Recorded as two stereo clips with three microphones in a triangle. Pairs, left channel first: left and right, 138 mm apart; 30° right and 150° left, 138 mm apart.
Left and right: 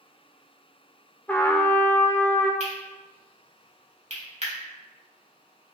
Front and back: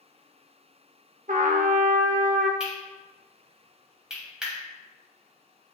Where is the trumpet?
170° left, 0.9 m.